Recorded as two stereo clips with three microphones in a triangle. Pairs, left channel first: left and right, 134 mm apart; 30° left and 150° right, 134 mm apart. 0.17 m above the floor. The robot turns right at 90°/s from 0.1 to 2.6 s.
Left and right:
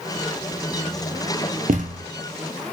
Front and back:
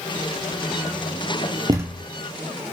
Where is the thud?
90° right, 0.8 m; by 2.1 s 55° right, 0.8 m.